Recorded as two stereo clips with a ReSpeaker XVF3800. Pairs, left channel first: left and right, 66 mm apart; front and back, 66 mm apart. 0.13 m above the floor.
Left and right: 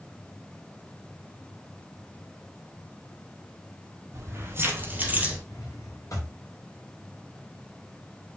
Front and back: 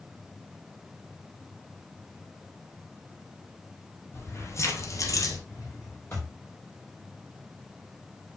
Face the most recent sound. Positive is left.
turn(degrees=50)